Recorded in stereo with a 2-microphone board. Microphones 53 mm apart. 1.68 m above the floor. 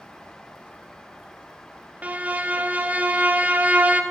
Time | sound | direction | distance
2.0 | a violin | 30° right (ahead or behind) | 0.5 m